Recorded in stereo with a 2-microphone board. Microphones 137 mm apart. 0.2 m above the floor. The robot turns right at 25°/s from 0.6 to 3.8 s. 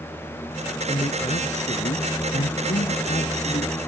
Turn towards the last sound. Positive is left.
turn(degrees=125)